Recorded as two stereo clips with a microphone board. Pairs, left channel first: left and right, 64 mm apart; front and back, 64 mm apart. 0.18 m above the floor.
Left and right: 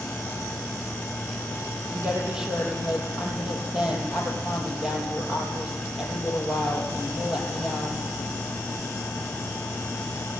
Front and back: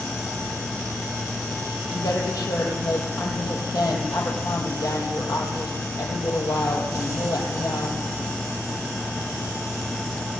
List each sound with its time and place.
1.9 s a woman speaking: 10° right, 5 m